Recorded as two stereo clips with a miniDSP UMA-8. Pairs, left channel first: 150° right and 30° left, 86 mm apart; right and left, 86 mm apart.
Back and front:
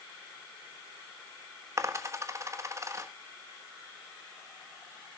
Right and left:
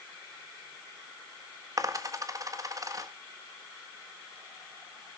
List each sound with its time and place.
1.8 s a dropped coin: 70° left, 1.3 m